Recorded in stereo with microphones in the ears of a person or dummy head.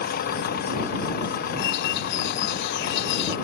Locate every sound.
0.0 s an engine running: 55° left (ahead or behind)
1.6 s a bird: 65° left (ahead or behind)